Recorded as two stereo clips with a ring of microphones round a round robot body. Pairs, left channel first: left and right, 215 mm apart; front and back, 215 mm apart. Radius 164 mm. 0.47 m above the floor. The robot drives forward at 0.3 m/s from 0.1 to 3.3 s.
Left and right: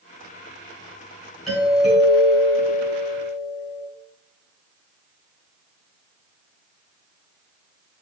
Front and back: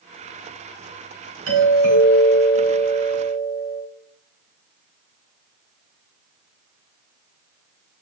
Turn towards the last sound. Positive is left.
turn(degrees=180)